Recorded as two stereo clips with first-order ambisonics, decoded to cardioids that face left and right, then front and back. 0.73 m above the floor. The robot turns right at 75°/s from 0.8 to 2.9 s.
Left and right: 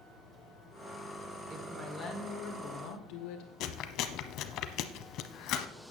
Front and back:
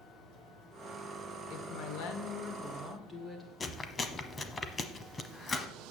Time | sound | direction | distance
1.5 | a woman speaking | 30° right | 2 m
3.6 | chewing | 70° left | 0.8 m